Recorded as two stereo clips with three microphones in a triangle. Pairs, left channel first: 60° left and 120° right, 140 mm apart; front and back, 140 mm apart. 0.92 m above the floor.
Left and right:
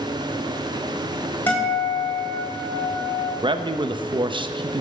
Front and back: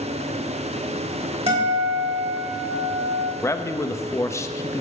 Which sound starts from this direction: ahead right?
A man speaking, at 3.4 s.